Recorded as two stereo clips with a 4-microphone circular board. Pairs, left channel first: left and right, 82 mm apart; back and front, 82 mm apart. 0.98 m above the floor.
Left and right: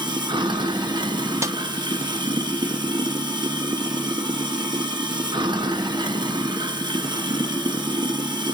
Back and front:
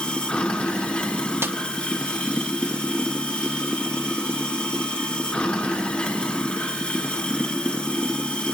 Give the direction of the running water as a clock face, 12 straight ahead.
3 o'clock.